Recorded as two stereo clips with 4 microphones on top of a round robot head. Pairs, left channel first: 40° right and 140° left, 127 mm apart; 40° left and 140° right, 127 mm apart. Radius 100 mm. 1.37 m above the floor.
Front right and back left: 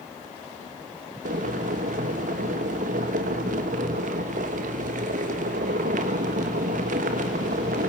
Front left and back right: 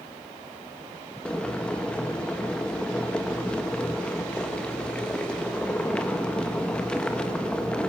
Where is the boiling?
120° left, 1.3 m.